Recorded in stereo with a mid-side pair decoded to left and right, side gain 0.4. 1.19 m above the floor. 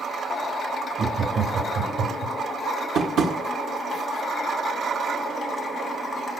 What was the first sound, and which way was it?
Laughter, 50° right.